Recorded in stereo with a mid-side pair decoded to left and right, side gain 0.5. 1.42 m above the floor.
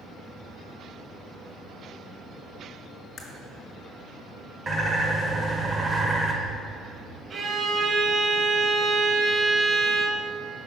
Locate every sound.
3.2 s a crack: 40° left, 1.8 m
4.7 s a bird: 25° right, 1.3 m
7.3 s a violin: 50° right, 1.0 m